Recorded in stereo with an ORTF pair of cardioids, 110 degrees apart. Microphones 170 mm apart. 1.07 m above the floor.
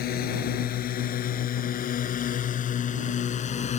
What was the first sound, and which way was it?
A drone, 65° left.